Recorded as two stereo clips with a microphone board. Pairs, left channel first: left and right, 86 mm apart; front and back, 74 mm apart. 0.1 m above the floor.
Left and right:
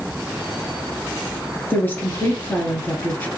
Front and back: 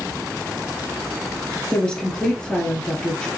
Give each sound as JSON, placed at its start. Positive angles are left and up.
{"t": 1.7, "sound": "a woman speaking", "azimuth_deg": 60, "distance_m": 1.6}